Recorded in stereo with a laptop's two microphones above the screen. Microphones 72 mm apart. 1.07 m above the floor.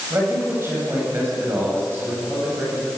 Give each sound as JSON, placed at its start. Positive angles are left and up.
{"t": 0.1, "sound": "a man speaking", "side_deg": -40, "distance_m": 7.5}